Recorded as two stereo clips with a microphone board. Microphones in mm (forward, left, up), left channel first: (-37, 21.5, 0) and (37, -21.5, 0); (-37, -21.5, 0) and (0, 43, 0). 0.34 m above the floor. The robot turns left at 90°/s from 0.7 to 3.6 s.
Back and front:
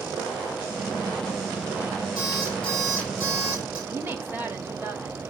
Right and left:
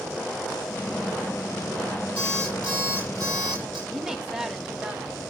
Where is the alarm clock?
175° left, 4.5 m; by 3.8 s 45° left, 4.5 m.